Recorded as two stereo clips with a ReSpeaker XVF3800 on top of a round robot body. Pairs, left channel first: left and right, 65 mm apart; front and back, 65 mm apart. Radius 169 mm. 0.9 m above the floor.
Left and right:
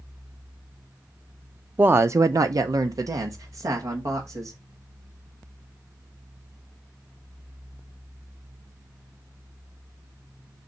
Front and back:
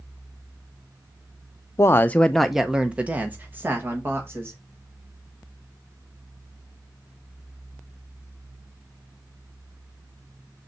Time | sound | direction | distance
1.8 | a woman speaking | 30° right | 0.6 m